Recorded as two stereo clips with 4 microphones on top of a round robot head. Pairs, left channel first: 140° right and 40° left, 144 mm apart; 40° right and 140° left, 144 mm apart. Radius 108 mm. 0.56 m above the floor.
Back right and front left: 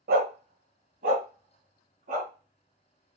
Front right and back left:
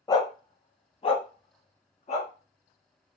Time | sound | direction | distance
0.1 | a dog barking | 25° left | 1.0 m